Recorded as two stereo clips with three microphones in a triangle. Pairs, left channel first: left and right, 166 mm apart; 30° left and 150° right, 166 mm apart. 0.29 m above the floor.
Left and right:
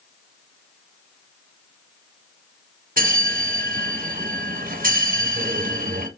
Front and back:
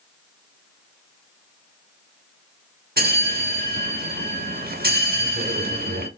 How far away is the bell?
About 0.7 m.